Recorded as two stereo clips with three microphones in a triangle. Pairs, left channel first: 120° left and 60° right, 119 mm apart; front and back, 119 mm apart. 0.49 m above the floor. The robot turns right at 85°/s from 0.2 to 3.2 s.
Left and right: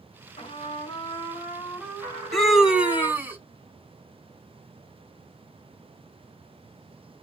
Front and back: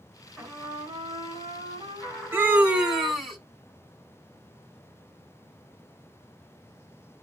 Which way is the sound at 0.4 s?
105° left.